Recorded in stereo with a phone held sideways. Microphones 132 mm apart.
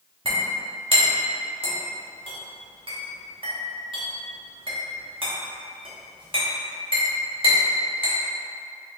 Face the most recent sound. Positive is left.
turn(degrees=-40)  # may be behind; listen again after turning